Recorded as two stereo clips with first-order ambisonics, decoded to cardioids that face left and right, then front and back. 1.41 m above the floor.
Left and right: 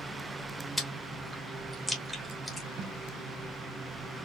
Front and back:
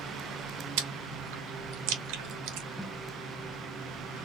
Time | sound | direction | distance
0.8 | chewing | 175° left | 1.1 m
2.8 | tape being pulled | 85° right | 0.8 m